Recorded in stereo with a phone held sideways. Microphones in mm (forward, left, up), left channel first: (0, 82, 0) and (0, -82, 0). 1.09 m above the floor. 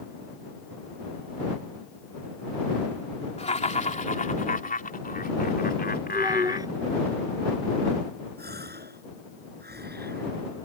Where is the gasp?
80° right.